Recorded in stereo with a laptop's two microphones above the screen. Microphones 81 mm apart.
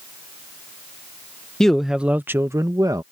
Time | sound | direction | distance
1.6 | a man speaking | 10° left (ahead or behind) | ?